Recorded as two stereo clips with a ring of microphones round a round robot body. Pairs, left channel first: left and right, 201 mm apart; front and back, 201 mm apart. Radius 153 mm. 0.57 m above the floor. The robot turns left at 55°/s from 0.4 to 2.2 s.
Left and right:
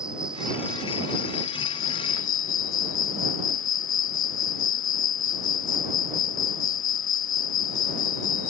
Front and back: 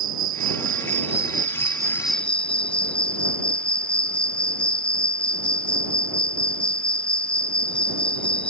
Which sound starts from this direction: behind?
An insect, at 0.0 s.